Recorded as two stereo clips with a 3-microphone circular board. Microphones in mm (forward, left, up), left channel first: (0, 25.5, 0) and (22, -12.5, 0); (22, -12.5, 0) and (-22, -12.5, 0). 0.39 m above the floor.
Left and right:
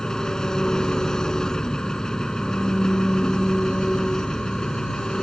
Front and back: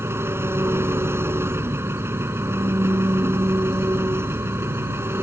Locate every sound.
0.0 s an engine running: 165° right